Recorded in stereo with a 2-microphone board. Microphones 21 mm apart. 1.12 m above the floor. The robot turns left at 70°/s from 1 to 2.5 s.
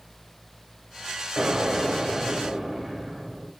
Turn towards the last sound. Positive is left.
turn(degrees=-150)